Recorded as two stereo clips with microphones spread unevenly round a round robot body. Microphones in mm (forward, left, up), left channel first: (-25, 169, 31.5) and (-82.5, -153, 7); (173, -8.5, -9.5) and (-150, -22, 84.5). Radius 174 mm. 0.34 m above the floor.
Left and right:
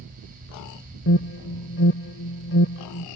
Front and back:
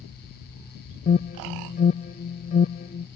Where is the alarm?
40° left.